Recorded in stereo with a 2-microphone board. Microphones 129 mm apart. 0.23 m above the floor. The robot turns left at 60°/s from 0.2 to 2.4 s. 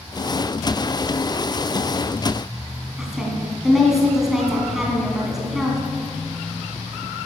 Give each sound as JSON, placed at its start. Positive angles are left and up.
{"t": 3.0, "sound": "a woman speaking", "side_deg": 0, "distance_m": 2.5}